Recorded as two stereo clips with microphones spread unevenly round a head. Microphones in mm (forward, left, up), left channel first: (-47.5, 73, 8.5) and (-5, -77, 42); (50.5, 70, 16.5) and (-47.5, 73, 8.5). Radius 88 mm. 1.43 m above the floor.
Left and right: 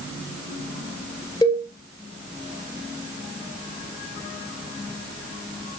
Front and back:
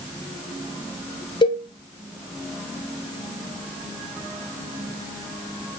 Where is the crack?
I don't hear a crack.